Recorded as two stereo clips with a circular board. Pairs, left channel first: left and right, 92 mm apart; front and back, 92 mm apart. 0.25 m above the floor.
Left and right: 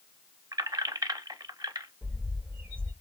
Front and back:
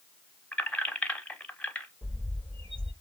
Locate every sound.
0.5 s keys jangling: 70° right, 0.9 m
2.0 s a bird: 160° right, 3.5 m